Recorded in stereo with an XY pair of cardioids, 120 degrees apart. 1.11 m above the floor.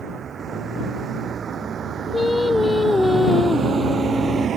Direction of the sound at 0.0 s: 45° right.